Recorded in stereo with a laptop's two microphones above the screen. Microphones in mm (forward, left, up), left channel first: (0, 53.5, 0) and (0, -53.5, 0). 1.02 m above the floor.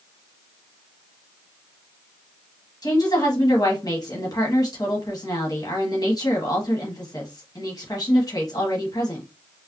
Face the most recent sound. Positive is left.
turn(degrees=40)  # may be behind; listen again after turning